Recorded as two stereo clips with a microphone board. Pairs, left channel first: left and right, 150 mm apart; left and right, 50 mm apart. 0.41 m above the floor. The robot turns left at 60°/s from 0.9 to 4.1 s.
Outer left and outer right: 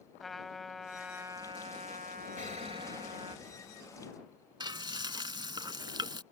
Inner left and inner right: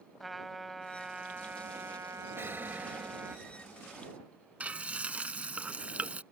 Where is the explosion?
110° right; by 3.8 s 160° left.